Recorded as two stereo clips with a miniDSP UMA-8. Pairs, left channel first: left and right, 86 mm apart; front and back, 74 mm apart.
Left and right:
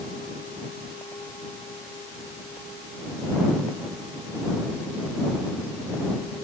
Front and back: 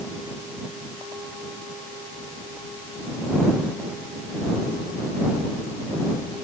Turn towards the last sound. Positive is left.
No sound to turn to.